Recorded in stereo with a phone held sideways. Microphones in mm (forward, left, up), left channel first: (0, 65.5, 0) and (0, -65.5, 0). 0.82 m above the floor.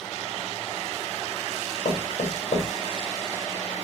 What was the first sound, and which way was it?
Knocking, 50° left (ahead or behind).